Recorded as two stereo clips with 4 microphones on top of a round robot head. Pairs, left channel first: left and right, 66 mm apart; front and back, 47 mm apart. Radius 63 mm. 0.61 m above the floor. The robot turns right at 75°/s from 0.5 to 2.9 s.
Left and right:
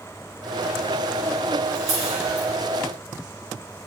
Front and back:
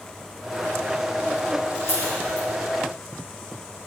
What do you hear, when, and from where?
1.8 s a camera shutter: 55° right, 4.5 m; by 2.5 s straight ahead, 4.5 m